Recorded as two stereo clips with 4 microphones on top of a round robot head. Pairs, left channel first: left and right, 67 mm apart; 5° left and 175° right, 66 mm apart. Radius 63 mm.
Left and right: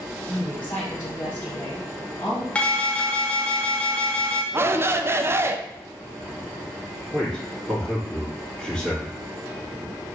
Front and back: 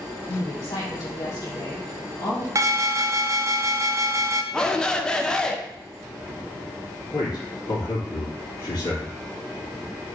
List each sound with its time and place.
0.3 s a woman speaking: 20° left, 1.8 m
2.5 s an alarm: 160° left, 0.6 m
4.5 s a shout: 70° right, 0.6 m
7.1 s a man speaking: 10° left, 2 m